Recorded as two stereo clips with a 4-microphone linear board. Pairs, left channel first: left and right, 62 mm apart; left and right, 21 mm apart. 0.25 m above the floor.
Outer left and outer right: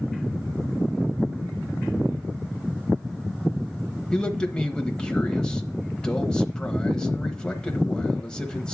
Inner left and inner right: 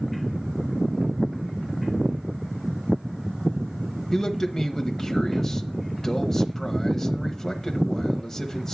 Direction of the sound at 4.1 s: 15° left (ahead or behind).